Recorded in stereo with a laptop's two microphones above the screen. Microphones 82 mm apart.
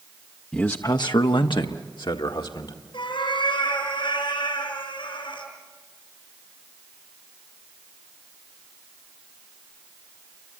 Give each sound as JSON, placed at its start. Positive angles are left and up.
{"t": 0.5, "sound": "a man speaking", "side_deg": 15, "distance_m": 0.6}
{"t": 2.9, "sound": "a cat meowing", "side_deg": 80, "distance_m": 7.0}